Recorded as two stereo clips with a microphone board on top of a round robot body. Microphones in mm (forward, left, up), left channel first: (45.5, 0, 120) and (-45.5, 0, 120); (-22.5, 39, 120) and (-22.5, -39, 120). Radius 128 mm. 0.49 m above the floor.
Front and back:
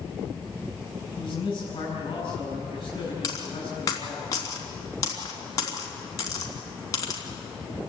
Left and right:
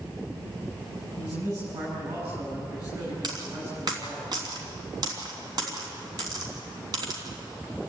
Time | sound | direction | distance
1.2 | a man speaking | 40° right | 5.5 m
3.2 | a dropped coin | 55° right | 3 m